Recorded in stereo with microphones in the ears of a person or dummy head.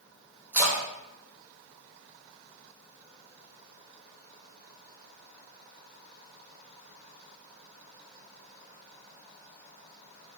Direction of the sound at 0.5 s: 10° right (ahead or behind).